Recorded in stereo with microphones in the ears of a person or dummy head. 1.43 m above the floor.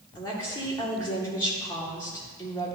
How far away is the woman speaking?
About 1.7 m.